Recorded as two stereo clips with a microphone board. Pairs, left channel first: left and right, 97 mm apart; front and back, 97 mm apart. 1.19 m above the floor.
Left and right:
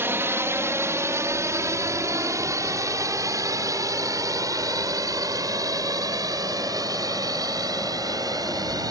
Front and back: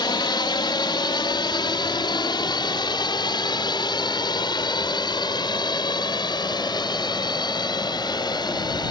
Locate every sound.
0.0 s a drone: 30° right; by 8.9 s 40° right